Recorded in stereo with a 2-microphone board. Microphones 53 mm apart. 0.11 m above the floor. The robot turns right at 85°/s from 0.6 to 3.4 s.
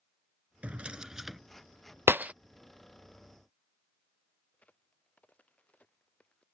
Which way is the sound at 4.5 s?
25° left (ahead or behind).